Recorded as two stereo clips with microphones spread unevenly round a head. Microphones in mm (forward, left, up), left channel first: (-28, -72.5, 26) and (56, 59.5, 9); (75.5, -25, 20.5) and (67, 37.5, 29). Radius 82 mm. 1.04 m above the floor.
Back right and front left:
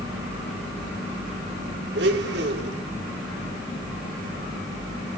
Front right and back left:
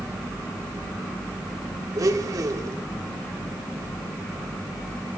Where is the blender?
85° left, 1.0 m.